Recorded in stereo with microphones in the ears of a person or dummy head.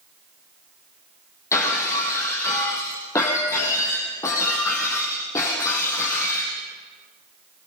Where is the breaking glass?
20° left (ahead or behind), 5 m.